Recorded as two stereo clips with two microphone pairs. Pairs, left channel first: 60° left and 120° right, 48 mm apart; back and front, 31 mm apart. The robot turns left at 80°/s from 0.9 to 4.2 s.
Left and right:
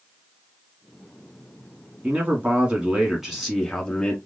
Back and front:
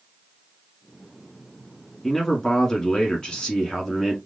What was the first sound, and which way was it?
A man speaking, 105° right.